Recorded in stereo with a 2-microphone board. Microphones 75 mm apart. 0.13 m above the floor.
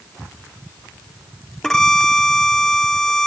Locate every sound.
1.6 s a violin: 5° left (ahead or behind)